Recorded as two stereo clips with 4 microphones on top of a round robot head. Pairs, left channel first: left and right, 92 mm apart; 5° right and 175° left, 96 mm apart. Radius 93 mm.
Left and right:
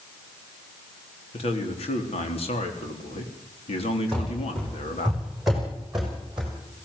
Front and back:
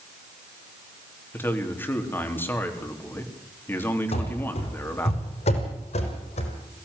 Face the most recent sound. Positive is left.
turn(degrees=-5)